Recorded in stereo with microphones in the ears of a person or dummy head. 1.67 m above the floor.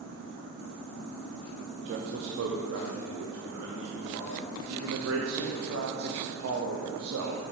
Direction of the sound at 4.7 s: 85° right.